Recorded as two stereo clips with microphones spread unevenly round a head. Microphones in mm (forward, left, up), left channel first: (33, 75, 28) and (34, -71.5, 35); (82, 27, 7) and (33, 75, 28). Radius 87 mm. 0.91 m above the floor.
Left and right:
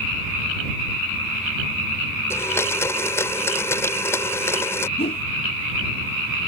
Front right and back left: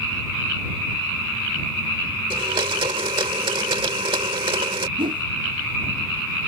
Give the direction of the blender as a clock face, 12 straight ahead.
6 o'clock.